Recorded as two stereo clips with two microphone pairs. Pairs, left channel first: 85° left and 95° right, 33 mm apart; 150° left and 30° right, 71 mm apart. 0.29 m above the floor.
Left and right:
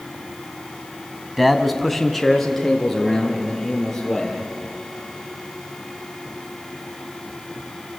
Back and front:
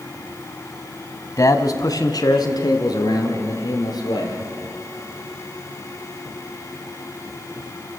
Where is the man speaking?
175° left, 1.5 m; by 4.4 s 165° left, 6 m.